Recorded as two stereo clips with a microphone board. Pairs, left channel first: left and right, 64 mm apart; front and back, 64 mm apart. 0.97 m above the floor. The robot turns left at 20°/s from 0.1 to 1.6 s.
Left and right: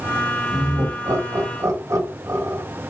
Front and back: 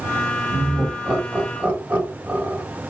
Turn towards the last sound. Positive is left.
turn(degrees=-115)